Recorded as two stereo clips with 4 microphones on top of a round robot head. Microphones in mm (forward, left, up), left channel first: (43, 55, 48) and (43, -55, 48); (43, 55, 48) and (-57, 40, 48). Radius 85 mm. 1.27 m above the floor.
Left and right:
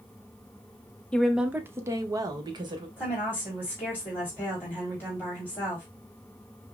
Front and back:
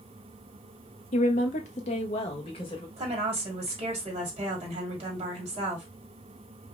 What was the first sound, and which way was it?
A woman speaking, 10° left.